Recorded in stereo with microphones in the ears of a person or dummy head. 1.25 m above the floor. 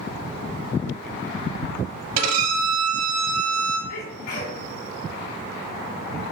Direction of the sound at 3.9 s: 50° left (ahead or behind).